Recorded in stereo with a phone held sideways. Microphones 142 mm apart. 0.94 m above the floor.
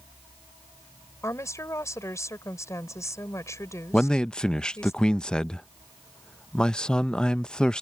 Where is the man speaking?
5° left (ahead or behind).